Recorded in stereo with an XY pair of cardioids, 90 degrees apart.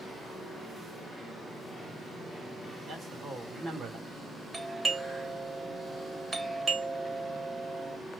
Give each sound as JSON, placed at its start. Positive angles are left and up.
{"t": 2.9, "sound": "a man speaking", "azimuth_deg": -60, "distance_m": 2.0}
{"t": 4.5, "sound": "a doorbell", "azimuth_deg": -35, "distance_m": 1.2}